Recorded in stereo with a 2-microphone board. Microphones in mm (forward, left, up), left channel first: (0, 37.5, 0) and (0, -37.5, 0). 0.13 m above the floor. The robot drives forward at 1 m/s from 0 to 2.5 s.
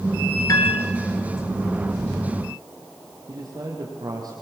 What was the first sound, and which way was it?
A piano, 50° left (ahead or behind).